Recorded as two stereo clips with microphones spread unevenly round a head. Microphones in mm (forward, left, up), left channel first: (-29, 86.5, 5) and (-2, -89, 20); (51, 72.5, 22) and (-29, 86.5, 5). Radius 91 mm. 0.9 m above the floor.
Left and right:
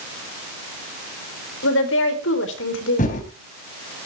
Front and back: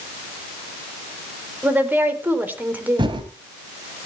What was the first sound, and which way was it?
A woman speaking, 105° left.